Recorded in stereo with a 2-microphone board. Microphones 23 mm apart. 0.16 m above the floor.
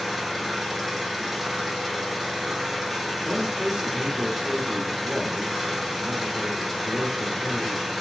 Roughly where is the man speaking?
Right.